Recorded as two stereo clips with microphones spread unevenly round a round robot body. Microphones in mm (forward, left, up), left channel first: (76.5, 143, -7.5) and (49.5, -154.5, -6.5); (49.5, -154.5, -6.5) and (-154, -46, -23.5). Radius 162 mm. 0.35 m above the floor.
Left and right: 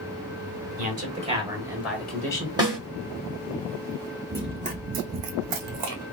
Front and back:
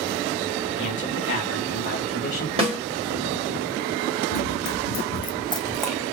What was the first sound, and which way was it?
A man speaking, 45° right.